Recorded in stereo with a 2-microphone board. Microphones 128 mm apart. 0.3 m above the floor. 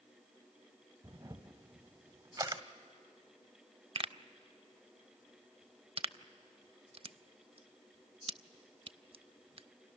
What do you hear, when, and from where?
1.0 s a camera shutter: 30° right (ahead or behind), 1.0 m
4.0 s a pop: 45° right (ahead or behind), 0.5 m